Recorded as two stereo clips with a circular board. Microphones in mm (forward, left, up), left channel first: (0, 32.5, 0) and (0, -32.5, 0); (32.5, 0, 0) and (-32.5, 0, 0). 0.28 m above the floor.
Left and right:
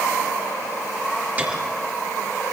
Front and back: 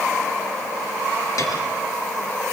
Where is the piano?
25° right, 4 m.